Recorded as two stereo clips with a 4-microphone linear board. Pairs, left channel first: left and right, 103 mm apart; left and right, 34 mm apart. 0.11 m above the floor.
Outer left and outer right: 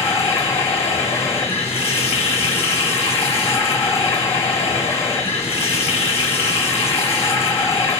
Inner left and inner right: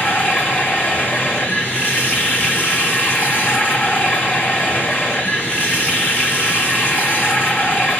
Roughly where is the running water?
Left.